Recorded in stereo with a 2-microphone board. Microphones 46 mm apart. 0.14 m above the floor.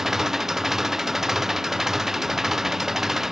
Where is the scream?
I don't hear a scream.